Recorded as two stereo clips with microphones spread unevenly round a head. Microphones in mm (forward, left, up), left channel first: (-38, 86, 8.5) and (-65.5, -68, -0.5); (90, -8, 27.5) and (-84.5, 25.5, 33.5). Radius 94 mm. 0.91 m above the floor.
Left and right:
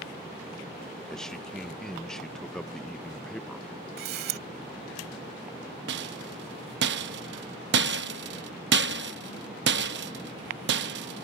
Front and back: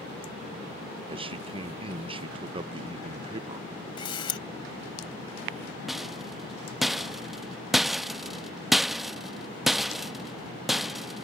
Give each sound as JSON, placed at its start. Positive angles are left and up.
{"t": 1.1, "sound": "a man speaking", "azimuth_deg": 170}
{"t": 4.0, "sound": "a camera shutter", "azimuth_deg": -75}
{"t": 5.9, "sound": "a rattle", "azimuth_deg": -100}